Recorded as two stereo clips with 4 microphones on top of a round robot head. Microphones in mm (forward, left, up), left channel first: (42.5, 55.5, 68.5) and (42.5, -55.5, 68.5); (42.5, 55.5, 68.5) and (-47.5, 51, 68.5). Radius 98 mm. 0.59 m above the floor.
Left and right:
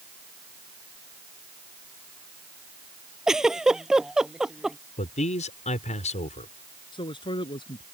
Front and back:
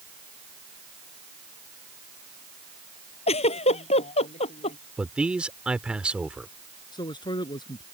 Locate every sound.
3.3 s a giggle: 5° right
5.0 s a man speaking: 105° left
6.9 s a man speaking: 45° left